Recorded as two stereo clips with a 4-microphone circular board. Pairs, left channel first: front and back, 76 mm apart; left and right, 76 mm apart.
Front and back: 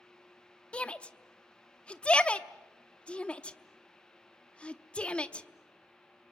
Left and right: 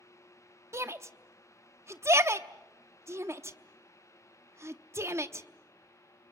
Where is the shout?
65° right, 0.8 m.